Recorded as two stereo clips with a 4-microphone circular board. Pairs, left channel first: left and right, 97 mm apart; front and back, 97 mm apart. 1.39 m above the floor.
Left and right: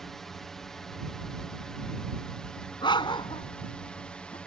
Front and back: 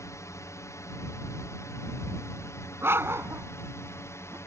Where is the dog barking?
115° left.